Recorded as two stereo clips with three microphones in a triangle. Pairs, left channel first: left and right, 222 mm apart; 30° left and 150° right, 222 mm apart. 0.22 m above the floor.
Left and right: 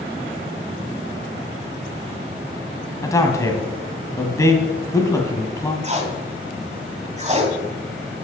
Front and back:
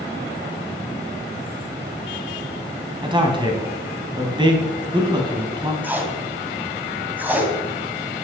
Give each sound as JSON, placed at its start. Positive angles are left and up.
{"t": 3.0, "sound": "a man speaking", "azimuth_deg": 155, "distance_m": 1.7}
{"t": 5.8, "sound": "tape being pulled", "azimuth_deg": -75, "distance_m": 1.7}